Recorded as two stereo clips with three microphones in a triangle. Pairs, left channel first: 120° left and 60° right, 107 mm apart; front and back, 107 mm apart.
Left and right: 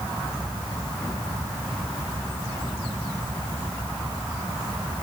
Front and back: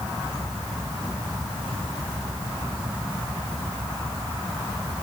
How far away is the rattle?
I don't hear a rattle.